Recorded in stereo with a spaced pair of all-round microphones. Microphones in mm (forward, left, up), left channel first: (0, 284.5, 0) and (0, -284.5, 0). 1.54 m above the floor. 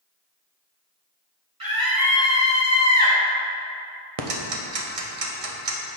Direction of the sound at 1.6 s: 35° right (ahead or behind).